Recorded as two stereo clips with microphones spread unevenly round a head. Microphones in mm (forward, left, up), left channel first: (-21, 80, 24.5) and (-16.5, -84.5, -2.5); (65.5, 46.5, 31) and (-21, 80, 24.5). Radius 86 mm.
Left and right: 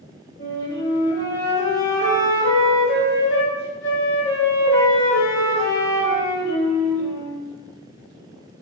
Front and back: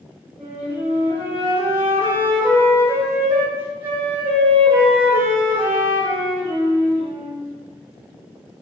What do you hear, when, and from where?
0.4 s a flute: 90° left, 1.7 m